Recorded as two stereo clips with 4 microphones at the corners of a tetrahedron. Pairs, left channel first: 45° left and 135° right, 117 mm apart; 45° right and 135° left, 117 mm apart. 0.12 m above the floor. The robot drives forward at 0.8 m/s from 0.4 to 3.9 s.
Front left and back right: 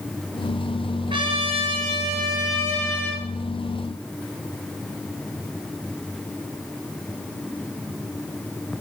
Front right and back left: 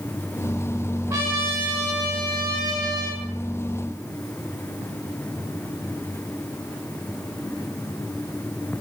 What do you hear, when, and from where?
1.1 s a trumpet: 160° right, 3 m; by 3.2 s 170° right, 4.5 m